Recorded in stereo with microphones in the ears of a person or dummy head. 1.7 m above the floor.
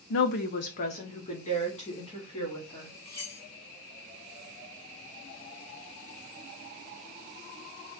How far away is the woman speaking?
About 0.5 m.